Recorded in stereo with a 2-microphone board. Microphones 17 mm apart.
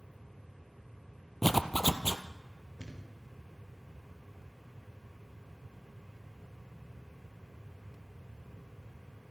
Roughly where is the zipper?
Centre.